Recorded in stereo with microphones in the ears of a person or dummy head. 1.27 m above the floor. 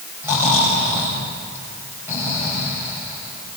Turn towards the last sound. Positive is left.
turn(degrees=-10)  # may be behind; listen again after turning